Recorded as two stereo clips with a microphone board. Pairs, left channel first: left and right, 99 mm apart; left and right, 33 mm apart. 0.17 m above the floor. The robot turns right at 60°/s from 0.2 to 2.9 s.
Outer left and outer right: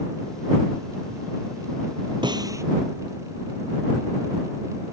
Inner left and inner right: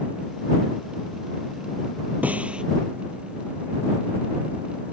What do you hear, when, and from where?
2.2 s a snare drum: 50° right (ahead or behind); by 2.6 s 30° right (ahead or behind)